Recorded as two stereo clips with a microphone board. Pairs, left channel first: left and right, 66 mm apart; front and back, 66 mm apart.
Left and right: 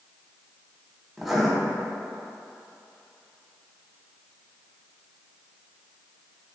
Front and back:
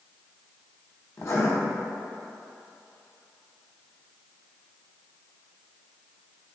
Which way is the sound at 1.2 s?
5° right.